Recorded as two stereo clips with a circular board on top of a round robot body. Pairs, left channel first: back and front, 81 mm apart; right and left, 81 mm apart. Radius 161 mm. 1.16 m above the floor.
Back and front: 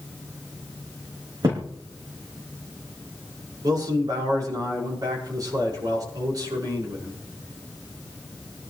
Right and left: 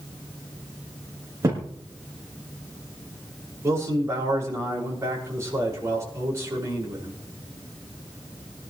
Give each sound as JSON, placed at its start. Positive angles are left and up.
{"t": 1.4, "sound": "a thud", "azimuth_deg": 40, "distance_m": 4.5}
{"t": 3.6, "sound": "a man speaking", "azimuth_deg": 35, "distance_m": 6.0}